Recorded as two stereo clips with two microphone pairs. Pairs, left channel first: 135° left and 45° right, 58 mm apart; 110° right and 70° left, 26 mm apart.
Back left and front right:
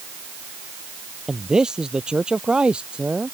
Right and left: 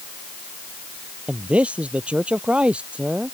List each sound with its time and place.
1.3 s a man speaking: 30° left; by 3.4 s 25° left